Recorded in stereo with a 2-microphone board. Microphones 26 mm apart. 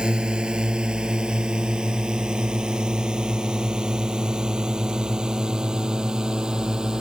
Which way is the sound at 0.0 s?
40° right (ahead or behind).